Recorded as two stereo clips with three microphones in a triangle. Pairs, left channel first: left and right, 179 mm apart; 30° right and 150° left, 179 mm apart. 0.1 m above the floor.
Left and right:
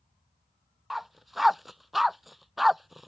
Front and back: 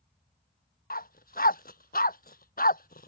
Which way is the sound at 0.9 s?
Straight ahead.